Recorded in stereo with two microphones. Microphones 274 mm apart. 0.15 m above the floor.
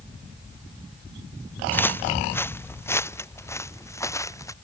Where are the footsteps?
5° left (ahead or behind); by 4.5 s 10° left (ahead or behind).